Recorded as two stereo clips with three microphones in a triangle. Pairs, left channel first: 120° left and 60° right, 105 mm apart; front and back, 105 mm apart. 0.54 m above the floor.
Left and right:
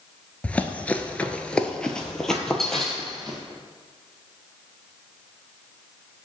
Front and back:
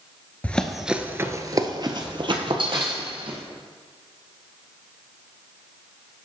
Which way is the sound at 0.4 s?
60° left.